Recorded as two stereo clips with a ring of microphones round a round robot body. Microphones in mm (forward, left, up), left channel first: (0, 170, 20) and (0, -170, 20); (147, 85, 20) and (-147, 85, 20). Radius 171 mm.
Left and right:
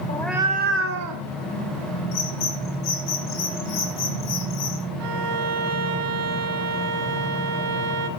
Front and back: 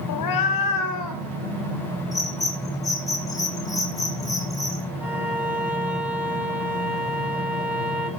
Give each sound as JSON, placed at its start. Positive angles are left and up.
{"t": 0.1, "sound": "a cat meowing", "azimuth_deg": 20, "distance_m": 0.6}
{"t": 2.1, "sound": "a bird", "azimuth_deg": 80, "distance_m": 2.5}
{"t": 5.0, "sound": "a violin", "azimuth_deg": -95, "distance_m": 1.2}